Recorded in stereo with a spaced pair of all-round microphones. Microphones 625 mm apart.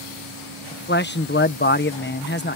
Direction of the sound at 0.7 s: 15° left (ahead or behind).